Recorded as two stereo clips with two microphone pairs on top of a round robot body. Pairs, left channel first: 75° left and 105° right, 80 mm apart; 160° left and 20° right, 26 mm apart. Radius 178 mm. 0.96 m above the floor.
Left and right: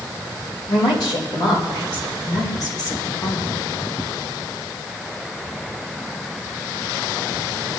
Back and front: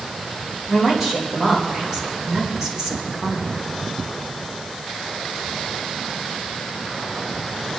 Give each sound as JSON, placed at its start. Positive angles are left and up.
{"t": 0.7, "sound": "a woman speaking", "azimuth_deg": 50, "distance_m": 4.5}